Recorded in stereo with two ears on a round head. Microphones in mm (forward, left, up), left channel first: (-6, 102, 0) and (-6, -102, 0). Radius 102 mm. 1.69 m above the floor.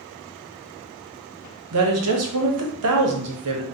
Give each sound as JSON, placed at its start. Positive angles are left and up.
{"t": 1.7, "sound": "a woman speaking", "side_deg": -75, "distance_m": 0.7}